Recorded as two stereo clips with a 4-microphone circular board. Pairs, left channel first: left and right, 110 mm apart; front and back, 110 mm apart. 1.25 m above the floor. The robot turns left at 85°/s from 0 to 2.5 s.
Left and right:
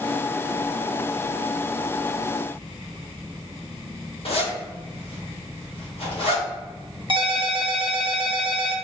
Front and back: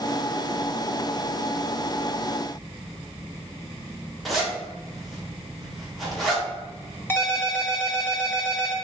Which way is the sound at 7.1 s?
65° right.